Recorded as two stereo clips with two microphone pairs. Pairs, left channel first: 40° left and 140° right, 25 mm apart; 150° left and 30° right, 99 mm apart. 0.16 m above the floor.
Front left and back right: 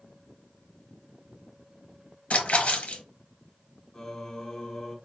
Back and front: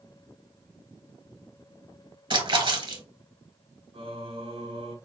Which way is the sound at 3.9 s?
30° right.